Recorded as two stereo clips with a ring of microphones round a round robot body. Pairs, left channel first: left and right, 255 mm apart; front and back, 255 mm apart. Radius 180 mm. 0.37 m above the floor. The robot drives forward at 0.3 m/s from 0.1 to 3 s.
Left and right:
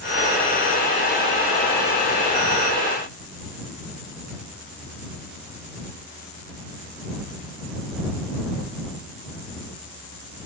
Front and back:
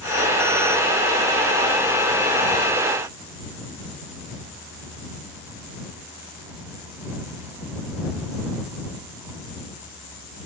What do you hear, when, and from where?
Only background noise.